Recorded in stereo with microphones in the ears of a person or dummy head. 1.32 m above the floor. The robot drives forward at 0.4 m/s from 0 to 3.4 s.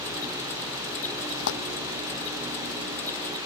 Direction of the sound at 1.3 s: 70° left (ahead or behind).